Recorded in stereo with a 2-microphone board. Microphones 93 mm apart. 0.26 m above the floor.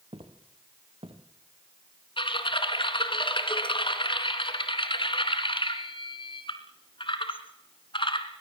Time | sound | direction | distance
0.1 | footsteps | 80° right | 4 m
2.2 | typing on a keyboard | 60° left (ahead or behind) | 2.5 m